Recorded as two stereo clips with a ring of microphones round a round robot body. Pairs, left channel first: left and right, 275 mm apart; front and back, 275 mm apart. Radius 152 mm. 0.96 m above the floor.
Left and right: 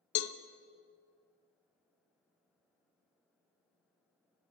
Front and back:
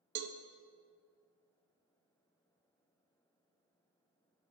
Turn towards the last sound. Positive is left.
turn(degrees=125)